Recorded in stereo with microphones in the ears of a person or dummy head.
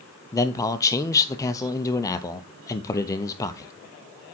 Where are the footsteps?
I don't hear footsteps.